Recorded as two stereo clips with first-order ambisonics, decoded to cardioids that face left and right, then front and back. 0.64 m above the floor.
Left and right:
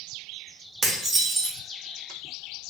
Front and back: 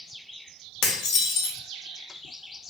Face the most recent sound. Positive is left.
turn(degrees=-20)